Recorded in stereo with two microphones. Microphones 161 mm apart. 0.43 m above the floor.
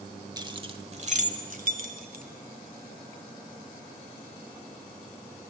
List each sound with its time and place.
0.4 s keys jangling: 25° right (ahead or behind), 1.1 m; by 2.2 s 65° right (ahead or behind), 1.9 m